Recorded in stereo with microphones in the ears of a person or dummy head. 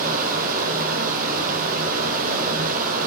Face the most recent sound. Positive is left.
turn(degrees=-45)  # may be behind; listen again after turning